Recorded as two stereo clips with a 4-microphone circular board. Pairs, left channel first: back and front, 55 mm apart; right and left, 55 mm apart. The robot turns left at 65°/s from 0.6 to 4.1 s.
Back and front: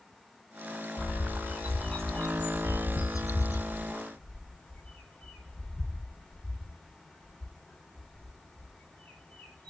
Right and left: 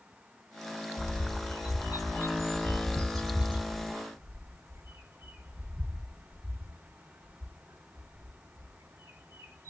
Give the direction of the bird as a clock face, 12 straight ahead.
1 o'clock.